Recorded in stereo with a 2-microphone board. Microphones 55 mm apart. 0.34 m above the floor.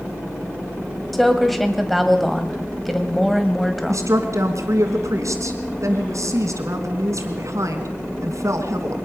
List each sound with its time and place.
1.1 s a woman speaking: centre (ahead or behind), 2 m
3.9 s a woman speaking: 75° right (ahead or behind), 3 m